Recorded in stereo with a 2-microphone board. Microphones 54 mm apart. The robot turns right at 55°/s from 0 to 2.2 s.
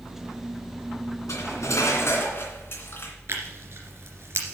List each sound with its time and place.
1.3 s cutlery clinking: 80° left, 2.5 m; by 3.1 s 130° left, 2.5 m
3.3 s tearing paper: 55° right (ahead or behind), 2.5 m